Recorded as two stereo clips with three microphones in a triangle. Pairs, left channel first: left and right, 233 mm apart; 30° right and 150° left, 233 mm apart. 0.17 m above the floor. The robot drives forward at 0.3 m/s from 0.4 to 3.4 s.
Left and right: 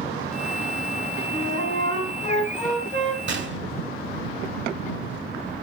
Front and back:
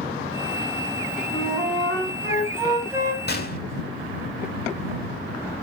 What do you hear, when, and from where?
1.3 s a flute: 60° left, 1.7 m; by 3.2 s 90° left, 1.6 m
3.3 s a gunshot: 65° right, 0.5 m; by 3.6 s 70° right, 0.5 m